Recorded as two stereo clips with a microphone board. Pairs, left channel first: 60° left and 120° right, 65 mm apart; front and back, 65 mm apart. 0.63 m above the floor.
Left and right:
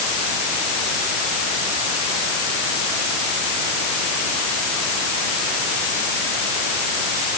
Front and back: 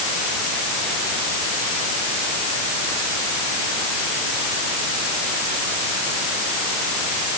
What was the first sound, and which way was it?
Only background noise.